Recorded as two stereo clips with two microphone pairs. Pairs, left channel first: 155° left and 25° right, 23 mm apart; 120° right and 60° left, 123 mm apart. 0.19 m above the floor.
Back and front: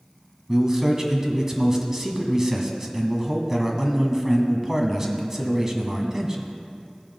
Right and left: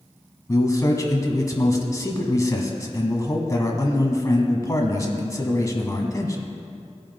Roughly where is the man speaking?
Right.